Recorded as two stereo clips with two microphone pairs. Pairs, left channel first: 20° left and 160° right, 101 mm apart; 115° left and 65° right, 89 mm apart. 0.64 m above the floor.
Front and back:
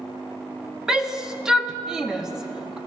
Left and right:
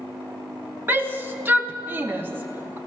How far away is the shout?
About 1.0 m.